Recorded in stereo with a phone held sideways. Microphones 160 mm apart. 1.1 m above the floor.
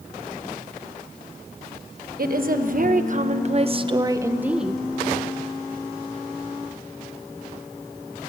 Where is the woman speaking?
65° right (ahead or behind), 1.4 m; by 4.8 s centre (ahead or behind), 0.9 m.